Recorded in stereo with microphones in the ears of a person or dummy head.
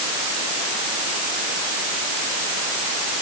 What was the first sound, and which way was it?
Only background noise.